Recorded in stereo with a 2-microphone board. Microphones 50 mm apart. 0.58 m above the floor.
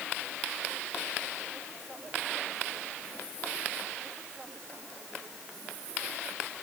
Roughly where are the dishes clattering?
No dishes clattering in this recording.